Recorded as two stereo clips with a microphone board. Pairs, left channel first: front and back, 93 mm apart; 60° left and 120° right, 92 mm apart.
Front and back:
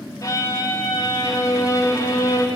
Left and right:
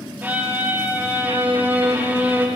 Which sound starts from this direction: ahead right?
A violin, at 0.2 s.